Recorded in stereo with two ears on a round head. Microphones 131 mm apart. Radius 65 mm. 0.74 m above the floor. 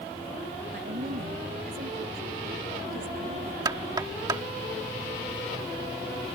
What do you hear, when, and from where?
0.7 s a woman speaking: 65° right (ahead or behind); by 3.5 s 70° right (ahead or behind)
3.6 s knocking: 30° right (ahead or behind)